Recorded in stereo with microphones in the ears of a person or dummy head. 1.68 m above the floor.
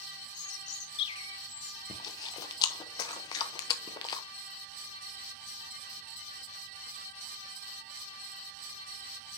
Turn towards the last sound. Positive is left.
turn(degrees=25)  # may be behind; listen again after turning